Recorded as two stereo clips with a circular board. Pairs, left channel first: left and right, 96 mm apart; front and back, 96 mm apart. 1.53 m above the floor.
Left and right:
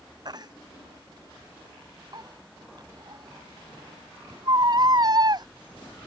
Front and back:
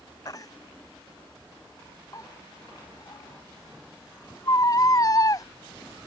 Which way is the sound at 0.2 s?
50° right.